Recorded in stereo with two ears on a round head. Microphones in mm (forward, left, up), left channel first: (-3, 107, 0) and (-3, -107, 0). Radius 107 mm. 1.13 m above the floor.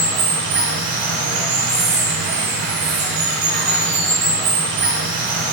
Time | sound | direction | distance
0.0 | running water | 50° right (ahead or behind) | 1.3 m